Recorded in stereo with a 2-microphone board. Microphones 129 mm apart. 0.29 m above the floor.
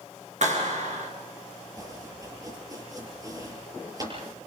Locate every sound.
0.4 s a clap: 65° right (ahead or behind), 4 m
1.8 s chopping: 30° right (ahead or behind), 7.5 m